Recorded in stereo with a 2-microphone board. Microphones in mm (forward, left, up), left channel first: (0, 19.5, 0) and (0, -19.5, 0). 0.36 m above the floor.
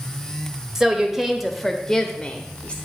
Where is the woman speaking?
15° right (ahead or behind), 1.1 m; by 2.8 s 30° left (ahead or behind), 1.0 m.